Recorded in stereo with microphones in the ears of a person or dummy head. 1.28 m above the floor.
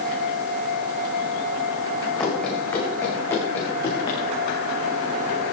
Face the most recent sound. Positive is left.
turn(degrees=30)  # may be behind; listen again after turning